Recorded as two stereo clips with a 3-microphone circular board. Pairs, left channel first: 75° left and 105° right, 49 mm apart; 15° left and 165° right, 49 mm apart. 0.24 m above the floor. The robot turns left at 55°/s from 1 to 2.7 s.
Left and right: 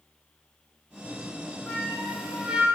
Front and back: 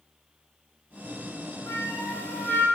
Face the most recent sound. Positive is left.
turn(degrees=-40)